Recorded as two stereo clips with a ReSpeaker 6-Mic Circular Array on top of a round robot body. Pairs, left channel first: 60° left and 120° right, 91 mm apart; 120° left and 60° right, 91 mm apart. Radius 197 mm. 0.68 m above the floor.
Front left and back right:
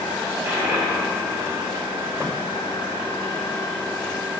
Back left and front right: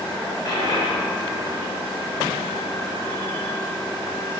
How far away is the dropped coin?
About 3 m.